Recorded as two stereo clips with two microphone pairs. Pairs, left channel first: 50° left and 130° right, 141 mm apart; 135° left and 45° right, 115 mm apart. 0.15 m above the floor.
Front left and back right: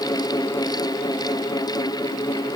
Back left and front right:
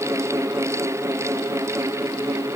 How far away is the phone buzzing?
I don't hear a phone buzzing.